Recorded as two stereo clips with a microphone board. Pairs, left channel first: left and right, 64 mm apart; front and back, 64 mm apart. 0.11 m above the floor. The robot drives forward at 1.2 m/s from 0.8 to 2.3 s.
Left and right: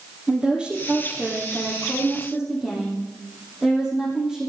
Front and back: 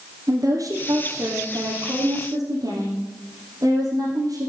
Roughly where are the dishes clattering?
No dishes clattering in this recording.